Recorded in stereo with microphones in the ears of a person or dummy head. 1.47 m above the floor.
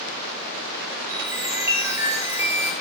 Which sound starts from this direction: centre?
A chime, at 1.1 s.